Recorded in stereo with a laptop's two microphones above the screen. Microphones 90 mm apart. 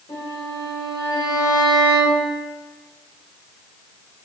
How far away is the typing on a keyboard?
No typing on a keyboard in this recording.